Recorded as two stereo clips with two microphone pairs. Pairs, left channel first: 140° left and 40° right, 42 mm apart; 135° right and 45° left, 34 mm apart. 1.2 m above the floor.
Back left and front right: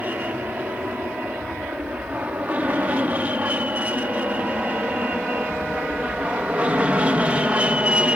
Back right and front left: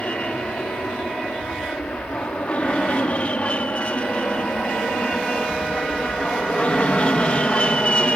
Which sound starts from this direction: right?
An aircraft, at 0.0 s.